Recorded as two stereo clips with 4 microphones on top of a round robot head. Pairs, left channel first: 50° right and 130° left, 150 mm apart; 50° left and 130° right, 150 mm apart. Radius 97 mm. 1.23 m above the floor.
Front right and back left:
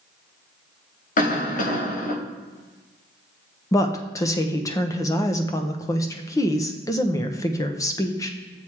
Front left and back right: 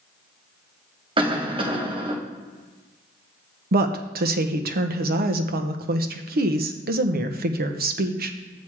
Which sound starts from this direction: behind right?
A woman speaking, at 3.7 s.